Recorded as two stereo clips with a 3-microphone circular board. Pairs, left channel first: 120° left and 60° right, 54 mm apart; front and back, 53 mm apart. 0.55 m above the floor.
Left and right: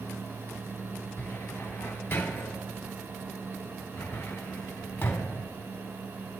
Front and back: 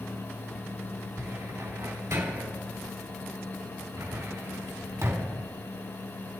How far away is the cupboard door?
About 3 m.